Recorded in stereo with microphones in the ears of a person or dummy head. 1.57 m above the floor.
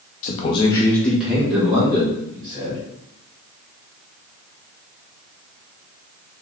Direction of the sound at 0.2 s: 45° left (ahead or behind).